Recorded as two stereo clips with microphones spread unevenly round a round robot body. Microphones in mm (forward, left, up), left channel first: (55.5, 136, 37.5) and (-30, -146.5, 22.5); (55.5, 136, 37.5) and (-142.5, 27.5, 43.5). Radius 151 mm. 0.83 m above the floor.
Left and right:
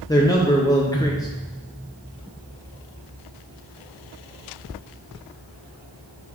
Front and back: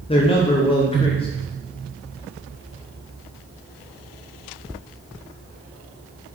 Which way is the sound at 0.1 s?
Straight ahead.